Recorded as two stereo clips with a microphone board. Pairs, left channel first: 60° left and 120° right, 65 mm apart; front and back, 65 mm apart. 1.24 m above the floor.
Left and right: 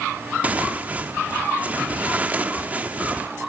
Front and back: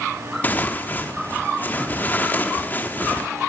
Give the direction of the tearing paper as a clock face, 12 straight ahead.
2 o'clock.